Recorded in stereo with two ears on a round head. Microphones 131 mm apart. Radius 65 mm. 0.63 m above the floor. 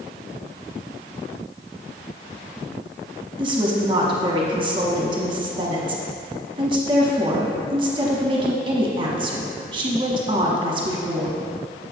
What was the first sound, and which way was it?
A woman speaking, 30° right (ahead or behind).